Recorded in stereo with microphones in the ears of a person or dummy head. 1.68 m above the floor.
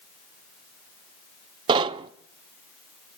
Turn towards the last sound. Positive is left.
turn(degrees=-30)  # may be behind; listen again after turning